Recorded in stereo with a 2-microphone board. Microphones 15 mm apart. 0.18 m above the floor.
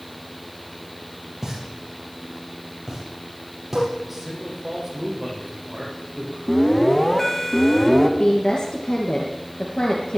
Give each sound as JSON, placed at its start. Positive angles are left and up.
{"t": 1.4, "sound": "a pop", "side_deg": -10, "distance_m": 5.0}
{"t": 4.0, "sound": "a man speaking", "side_deg": -15, "distance_m": 6.0}
{"t": 6.5, "sound": "an alarm", "side_deg": 20, "distance_m": 2.0}
{"t": 8.2, "sound": "a woman speaking", "side_deg": 50, "distance_m": 3.0}